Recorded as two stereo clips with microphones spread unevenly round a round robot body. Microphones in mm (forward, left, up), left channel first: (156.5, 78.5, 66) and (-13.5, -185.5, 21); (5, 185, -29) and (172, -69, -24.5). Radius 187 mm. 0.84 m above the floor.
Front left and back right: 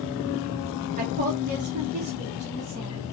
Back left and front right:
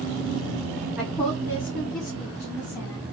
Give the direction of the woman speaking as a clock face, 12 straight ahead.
5 o'clock.